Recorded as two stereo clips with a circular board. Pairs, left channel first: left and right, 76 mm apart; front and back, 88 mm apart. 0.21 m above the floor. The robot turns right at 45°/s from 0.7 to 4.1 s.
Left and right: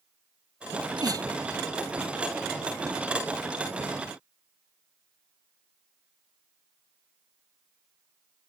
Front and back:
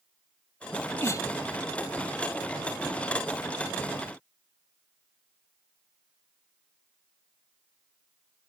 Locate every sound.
0.7 s a sneeze: 70° right; by 1.3 s 45° right